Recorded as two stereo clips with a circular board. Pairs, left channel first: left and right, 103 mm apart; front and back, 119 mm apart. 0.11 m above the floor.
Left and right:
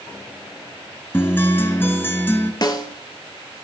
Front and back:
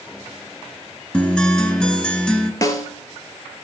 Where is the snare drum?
55° left, 0.9 m.